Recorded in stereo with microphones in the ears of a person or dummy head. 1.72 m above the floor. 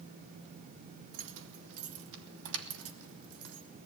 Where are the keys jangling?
65° right (ahead or behind), 2 m; by 3.7 s 80° right, 3.5 m.